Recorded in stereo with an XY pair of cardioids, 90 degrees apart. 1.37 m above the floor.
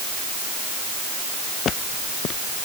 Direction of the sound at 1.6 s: 65° left.